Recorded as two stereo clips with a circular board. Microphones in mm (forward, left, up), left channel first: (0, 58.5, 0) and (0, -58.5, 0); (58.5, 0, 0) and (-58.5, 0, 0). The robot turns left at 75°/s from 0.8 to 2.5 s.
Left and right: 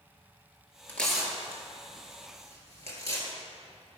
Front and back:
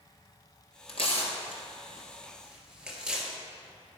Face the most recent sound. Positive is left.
turn(degrees=-100)